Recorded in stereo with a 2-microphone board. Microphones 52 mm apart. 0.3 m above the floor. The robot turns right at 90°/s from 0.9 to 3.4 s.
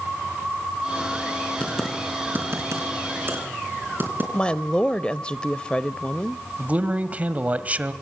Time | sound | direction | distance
1.6 | typing on a keyboard | 25° left (ahead or behind) | 4.5 m
4.3 | a woman speaking | 20° left (ahead or behind) | 0.9 m
6.6 | a man speaking | 30° right (ahead or behind) | 1.4 m